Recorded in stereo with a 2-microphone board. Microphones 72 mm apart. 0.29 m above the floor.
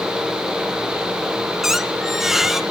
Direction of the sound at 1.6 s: 5° right (ahead or behind).